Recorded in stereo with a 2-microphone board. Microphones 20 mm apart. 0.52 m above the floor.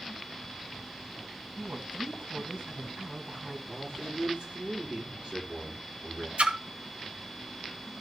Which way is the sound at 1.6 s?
75° right (ahead or behind).